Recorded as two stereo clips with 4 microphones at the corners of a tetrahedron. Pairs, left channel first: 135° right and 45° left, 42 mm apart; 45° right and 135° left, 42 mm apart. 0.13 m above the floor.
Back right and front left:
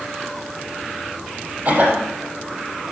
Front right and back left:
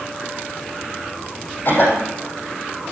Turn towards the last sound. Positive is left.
turn(degrees=0)